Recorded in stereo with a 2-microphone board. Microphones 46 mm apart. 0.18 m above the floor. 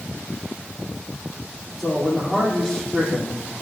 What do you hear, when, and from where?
1.8 s a man speaking: centre (ahead or behind), 9 m